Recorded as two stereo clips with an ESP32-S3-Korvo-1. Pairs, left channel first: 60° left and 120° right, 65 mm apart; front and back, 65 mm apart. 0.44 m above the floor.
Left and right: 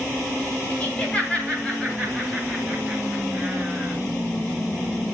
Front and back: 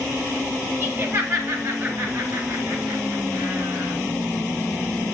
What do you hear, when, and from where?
0.8 s laughter: 125° left, 1.8 m; by 3.9 s 140° left, 4.5 m